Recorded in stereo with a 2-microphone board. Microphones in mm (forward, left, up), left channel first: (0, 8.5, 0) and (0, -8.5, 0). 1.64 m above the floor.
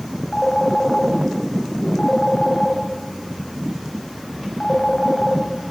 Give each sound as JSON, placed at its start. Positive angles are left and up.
{"t": 0.3, "sound": "a phone ringing", "side_deg": 65, "distance_m": 5.5}